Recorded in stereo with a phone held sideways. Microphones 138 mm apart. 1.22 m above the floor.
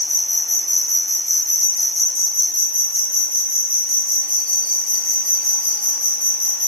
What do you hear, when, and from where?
0.0 s an insect: 10° left (ahead or behind), 3 m